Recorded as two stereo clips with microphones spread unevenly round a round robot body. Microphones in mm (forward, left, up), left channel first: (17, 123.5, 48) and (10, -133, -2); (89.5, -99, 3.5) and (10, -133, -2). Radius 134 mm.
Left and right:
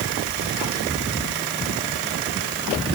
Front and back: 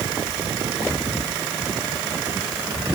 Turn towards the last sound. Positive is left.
No sound to turn to.